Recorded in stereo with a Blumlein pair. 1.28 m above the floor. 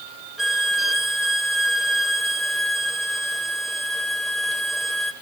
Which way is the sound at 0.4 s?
5° right.